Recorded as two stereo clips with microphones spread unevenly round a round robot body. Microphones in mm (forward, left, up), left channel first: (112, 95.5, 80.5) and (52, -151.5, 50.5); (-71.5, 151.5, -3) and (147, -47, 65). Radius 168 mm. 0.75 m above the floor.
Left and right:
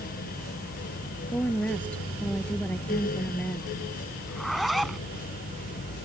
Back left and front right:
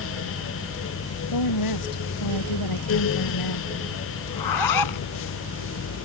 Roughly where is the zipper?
Behind.